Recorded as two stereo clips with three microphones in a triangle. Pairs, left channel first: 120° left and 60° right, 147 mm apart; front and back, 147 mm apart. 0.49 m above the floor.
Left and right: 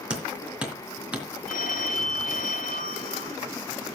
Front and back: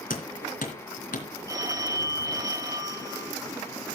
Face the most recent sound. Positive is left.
turn(degrees=115)